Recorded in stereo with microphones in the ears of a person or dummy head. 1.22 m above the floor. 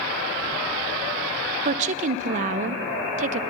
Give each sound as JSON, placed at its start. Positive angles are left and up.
{"t": 1.6, "sound": "a woman speaking", "side_deg": -40, "distance_m": 0.7}